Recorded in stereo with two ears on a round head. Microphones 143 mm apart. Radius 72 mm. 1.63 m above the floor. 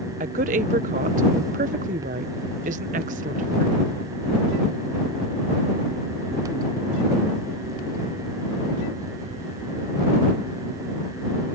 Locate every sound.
0.2 s a woman speaking: 50° right (ahead or behind)